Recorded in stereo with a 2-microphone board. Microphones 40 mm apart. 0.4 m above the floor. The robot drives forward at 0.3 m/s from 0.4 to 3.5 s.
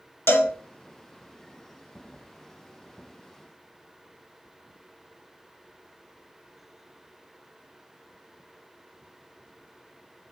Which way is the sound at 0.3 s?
85° left.